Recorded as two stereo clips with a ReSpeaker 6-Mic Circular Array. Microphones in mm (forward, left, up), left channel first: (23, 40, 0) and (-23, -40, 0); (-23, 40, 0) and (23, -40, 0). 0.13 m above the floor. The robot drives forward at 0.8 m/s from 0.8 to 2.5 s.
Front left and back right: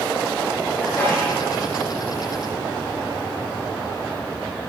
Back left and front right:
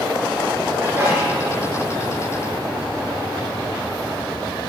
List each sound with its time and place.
0.8 s a sneeze: 5° right, 3.5 m